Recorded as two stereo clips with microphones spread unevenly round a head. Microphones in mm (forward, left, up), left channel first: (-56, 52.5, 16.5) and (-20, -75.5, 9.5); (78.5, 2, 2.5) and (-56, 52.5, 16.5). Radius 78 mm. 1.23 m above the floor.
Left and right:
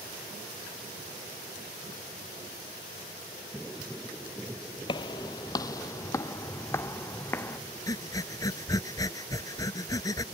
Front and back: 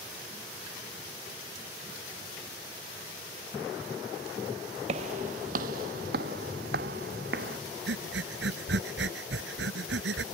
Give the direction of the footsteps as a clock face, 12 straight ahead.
7 o'clock.